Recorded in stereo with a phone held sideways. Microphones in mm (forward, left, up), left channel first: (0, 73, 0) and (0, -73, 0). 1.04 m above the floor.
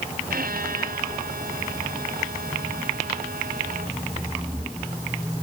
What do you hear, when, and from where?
0.3 s a violin: 75° right (ahead or behind)